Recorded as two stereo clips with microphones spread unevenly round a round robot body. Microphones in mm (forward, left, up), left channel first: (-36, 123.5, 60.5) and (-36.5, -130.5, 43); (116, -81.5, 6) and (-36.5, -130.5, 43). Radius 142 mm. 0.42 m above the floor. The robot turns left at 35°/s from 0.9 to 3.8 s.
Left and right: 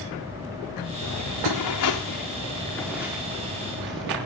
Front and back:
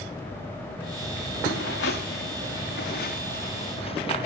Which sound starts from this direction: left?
Footsteps, at 1.0 s.